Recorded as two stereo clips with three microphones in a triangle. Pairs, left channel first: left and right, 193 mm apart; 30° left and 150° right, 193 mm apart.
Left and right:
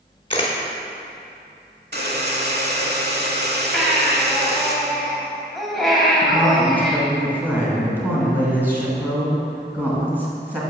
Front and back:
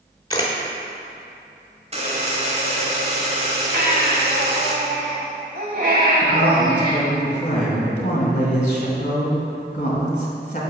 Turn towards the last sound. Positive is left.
turn(degrees=-10)